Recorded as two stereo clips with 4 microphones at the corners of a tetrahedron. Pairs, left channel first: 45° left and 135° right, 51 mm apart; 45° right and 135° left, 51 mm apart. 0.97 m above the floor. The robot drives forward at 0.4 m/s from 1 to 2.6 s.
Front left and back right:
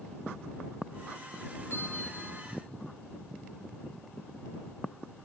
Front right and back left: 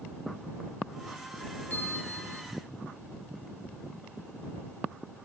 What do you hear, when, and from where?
1.7 s a bell: 10° left, 0.9 m; by 2.4 s 15° left, 0.6 m